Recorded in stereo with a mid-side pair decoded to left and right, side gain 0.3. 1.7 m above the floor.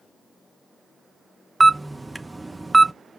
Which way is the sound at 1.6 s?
20° right.